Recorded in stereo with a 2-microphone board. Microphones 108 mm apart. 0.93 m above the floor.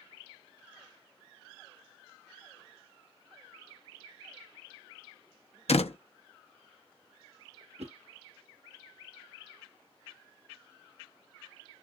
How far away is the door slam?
About 0.8 m.